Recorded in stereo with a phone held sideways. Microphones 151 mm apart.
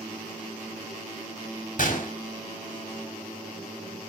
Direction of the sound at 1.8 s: 55° left (ahead or behind).